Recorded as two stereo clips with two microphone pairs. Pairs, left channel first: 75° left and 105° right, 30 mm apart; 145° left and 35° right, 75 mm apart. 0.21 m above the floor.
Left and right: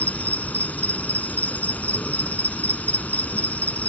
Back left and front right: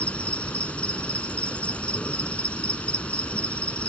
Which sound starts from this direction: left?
An insect, at 0.0 s.